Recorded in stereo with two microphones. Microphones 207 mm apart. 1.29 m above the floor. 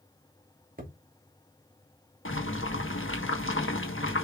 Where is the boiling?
75° left (ahead or behind), 1.5 m.